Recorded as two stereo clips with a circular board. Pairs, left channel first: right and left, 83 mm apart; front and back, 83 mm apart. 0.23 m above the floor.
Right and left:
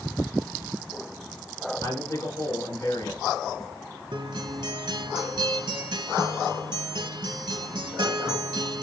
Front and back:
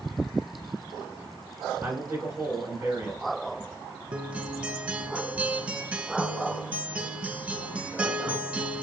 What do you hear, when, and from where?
1.8 s a man speaking: 120° right, 2.5 m
4.1 s a guitar: 110° left, 0.6 m